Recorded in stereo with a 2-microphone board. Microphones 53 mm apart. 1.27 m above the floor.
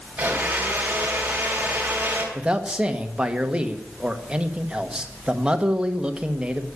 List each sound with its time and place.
0.2 s a blender: 30° right (ahead or behind), 3.5 m
2.4 s a man speaking: 20° right (ahead or behind), 1.2 m